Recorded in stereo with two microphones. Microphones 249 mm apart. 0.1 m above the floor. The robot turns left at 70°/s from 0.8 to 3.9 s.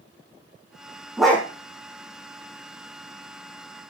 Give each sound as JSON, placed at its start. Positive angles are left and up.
{"t": 1.2, "sound": "a dog barking", "side_deg": -5, "distance_m": 2.0}